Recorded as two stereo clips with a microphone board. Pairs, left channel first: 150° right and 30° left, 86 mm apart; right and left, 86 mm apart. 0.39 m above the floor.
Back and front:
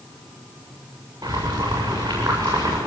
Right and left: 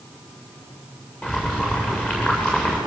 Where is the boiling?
15° right, 7.5 m.